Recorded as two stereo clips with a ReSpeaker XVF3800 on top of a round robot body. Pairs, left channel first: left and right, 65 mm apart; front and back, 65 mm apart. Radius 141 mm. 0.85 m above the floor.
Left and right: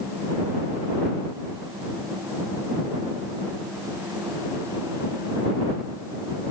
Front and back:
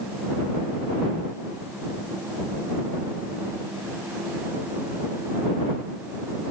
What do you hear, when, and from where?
Only background noise.